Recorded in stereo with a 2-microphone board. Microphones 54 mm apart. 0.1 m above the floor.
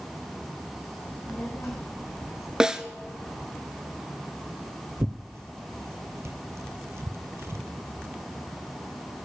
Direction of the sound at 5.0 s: 60° right (ahead or behind).